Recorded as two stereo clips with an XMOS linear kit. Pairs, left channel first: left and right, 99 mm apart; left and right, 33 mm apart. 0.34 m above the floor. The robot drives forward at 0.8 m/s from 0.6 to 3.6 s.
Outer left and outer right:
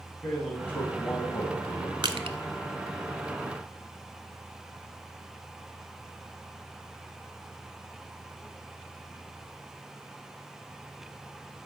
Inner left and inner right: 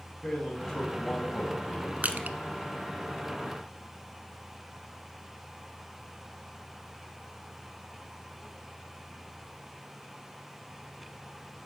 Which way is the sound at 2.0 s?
55° right (ahead or behind).